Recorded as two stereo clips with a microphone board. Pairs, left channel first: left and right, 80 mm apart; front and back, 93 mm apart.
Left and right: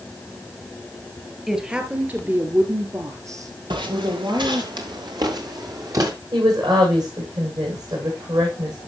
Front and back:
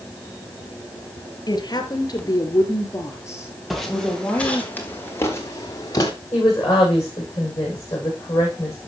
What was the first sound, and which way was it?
A woman speaking, 10° right.